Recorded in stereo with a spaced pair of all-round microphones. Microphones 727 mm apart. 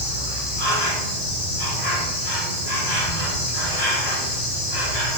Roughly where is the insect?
Left.